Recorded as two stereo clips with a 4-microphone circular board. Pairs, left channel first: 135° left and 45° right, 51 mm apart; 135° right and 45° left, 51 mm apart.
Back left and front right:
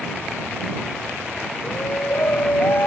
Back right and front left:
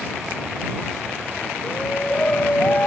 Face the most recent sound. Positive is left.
turn(degrees=170)